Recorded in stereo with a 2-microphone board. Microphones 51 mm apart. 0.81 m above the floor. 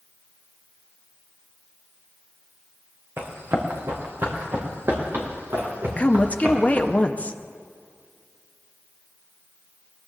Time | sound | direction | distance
3.2 | running footsteps | 50° right (ahead or behind) | 3 m
6.0 | a woman speaking | 25° left (ahead or behind) | 0.7 m